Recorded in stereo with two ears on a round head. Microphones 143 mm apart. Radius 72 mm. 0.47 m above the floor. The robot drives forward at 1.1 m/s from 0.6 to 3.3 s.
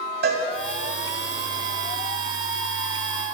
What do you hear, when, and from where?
0.2 s a cowbell: 65° right (ahead or behind), 1.6 m